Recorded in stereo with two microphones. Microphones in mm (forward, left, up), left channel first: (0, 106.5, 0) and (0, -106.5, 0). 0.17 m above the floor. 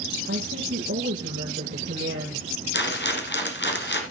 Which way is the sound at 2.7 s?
55° left (ahead or behind).